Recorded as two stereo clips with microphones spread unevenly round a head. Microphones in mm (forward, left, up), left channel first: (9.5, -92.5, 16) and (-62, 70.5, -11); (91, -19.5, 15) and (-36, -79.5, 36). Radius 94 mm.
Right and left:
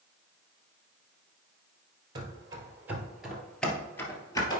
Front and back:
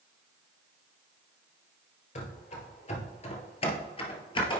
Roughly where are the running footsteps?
Ahead left.